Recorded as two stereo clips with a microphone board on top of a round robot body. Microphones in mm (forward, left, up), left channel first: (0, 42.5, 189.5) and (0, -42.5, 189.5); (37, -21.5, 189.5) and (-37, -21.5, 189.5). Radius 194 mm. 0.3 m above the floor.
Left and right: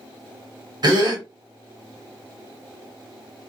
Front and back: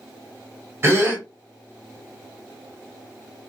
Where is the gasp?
125° right, 1.4 m.